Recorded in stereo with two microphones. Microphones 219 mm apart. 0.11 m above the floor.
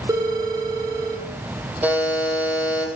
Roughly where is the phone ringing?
Centre.